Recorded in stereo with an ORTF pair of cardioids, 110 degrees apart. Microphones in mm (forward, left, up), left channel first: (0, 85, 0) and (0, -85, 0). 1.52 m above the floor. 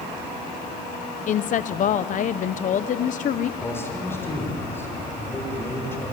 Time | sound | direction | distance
1.3 | a woman speaking | 50° left | 0.7 m
3.6 | a man speaking | 15° left | 6 m